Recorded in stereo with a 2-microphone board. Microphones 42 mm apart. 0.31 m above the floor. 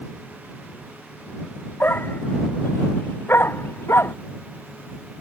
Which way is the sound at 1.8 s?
60° left (ahead or behind).